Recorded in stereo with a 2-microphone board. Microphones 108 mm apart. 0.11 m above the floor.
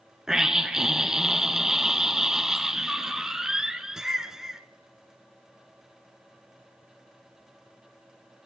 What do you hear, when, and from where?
0.3 s a scream: 5° right (ahead or behind), 1.1 m